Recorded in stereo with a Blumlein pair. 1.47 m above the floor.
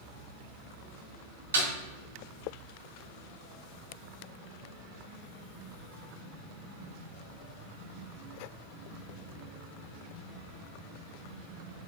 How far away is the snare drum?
About 3.5 m.